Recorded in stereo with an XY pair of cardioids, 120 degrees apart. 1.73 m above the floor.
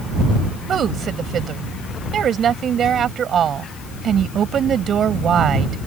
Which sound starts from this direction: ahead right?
A woman speaking, at 0.7 s.